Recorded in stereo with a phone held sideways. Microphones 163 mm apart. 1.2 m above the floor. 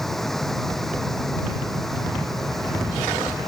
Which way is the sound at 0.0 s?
Centre (ahead or behind).